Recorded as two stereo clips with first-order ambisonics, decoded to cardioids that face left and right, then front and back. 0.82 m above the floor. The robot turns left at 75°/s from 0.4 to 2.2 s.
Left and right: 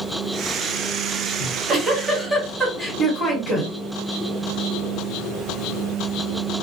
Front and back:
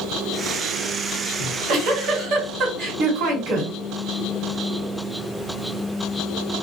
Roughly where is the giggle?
Behind right.